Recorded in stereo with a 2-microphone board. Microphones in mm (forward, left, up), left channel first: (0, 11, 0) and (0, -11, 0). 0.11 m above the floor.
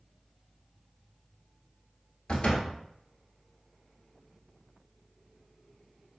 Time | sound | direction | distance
2.3 | a door slam | 40° left (ahead or behind) | 1.3 m